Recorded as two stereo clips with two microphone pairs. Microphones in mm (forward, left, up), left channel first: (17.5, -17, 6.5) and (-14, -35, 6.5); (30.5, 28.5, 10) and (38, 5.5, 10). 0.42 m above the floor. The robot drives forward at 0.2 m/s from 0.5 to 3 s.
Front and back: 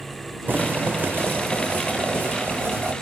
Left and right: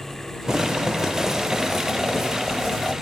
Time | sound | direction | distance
0.5 | boiling | 140° right | 0.6 m